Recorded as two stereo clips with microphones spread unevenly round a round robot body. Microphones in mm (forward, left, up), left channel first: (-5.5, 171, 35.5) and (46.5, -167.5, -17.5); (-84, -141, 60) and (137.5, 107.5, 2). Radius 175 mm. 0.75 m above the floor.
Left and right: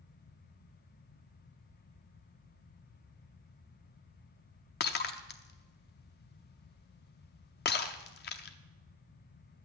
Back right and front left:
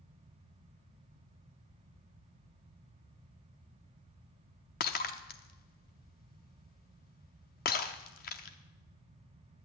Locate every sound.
4.8 s breaking glass: 165° left, 0.6 m